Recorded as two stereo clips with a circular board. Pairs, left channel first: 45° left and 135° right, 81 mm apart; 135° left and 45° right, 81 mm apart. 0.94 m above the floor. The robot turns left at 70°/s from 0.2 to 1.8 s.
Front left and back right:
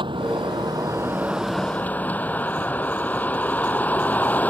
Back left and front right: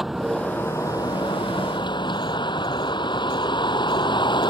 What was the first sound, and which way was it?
A vehicle, 135° right.